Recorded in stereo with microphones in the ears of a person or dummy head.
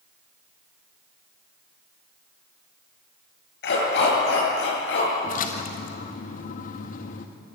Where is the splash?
45° left (ahead or behind), 1.8 m.